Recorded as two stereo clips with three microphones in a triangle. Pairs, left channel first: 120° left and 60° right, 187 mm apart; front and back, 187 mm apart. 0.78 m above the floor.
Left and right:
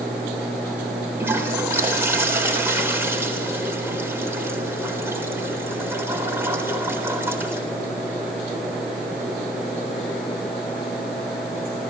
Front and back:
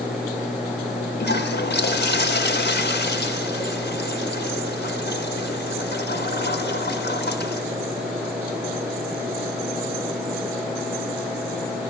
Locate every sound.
1.2 s a toilet flushing: 15° left, 3.5 m